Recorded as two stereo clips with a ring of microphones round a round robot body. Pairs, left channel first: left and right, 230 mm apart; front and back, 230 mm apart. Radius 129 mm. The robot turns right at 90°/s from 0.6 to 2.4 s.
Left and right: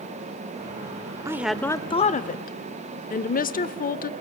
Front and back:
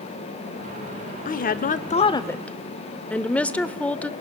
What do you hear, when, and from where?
1.2 s a woman speaking: 25° right, 0.9 m; by 4.1 s 80° left, 0.9 m